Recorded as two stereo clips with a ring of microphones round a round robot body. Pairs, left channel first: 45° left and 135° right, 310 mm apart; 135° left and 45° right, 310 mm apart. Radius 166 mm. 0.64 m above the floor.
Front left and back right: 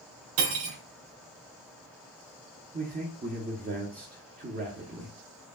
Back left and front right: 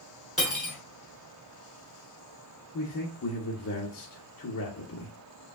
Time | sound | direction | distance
0.4 | cutlery clinking | 135° right | 2 m
2.7 | a man speaking | 170° left | 1.0 m